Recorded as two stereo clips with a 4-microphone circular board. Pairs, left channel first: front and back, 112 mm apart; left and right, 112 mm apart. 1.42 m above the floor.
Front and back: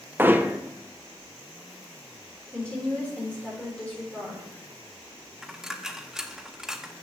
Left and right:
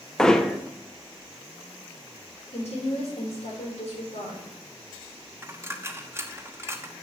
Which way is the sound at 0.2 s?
165° left.